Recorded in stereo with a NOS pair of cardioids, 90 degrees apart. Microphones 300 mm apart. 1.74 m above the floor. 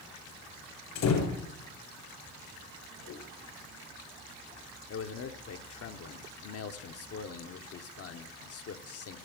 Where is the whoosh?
70° left, 1.9 m.